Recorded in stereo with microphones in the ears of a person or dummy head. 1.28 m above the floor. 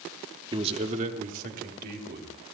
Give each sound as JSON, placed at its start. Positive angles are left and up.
{"t": 0.5, "sound": "a man speaking", "side_deg": -25, "distance_m": 1.3}